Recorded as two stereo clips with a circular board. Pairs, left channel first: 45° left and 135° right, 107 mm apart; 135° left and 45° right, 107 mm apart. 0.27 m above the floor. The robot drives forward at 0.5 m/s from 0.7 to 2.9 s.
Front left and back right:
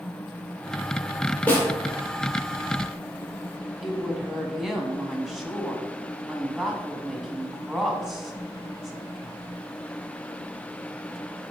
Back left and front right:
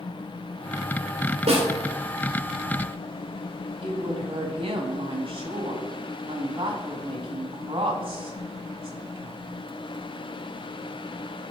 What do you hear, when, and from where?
1.5 s a snare drum: 30° right, 2.5 m
3.8 s a woman speaking: 50° right, 1.6 m